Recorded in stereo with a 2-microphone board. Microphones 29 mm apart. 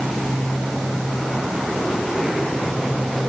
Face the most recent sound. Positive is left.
No sound to turn to.